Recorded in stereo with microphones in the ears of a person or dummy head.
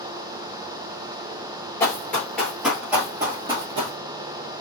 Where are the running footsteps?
15° left (ahead or behind), 1.8 m; by 4.0 s 30° right (ahead or behind), 2 m.